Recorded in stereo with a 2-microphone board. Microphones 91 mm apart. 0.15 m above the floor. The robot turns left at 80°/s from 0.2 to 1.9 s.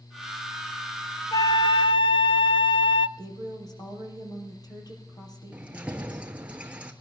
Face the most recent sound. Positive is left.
turn(degrees=-15)  # may be behind; listen again after turning